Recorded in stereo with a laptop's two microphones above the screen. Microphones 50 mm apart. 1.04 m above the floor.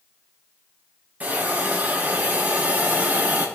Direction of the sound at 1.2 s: 30° right (ahead or behind).